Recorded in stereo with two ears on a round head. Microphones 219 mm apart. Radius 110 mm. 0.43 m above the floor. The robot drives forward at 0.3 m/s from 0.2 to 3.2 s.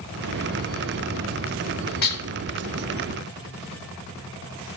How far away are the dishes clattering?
About 0.9 m.